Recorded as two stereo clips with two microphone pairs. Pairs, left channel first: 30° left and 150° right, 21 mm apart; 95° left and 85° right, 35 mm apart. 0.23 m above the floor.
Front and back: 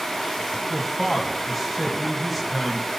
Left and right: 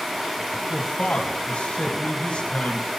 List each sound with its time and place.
0.7 s a man speaking: 120° left, 1.4 m